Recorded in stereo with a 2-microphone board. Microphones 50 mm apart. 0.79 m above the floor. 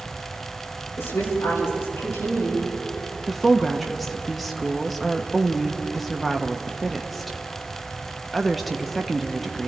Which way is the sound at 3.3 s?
5° left (ahead or behind).